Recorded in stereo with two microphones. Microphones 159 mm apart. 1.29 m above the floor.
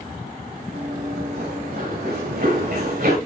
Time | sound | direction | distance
0.7 | running footsteps | 80° right | 6.5 m